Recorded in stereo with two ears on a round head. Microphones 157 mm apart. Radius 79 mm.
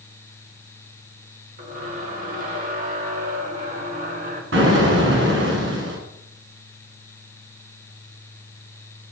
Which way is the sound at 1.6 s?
55° right (ahead or behind).